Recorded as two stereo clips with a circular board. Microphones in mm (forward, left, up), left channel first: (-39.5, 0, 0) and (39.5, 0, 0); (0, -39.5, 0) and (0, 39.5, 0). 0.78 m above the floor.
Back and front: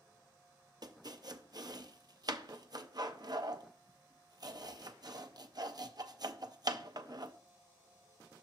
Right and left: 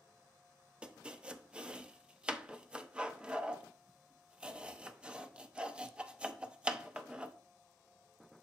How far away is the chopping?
About 0.6 m.